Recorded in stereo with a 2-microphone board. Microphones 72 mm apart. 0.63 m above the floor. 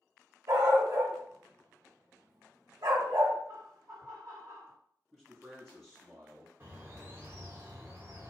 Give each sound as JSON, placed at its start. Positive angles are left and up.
{"t": 0.5, "sound": "a dog barking", "side_deg": -65, "distance_m": 1.6}
{"t": 3.5, "sound": "laughter", "side_deg": -60, "distance_m": 2.0}
{"t": 5.1, "sound": "a man speaking", "side_deg": -10, "distance_m": 0.9}
{"t": 6.6, "sound": "a bird", "side_deg": -30, "distance_m": 1.3}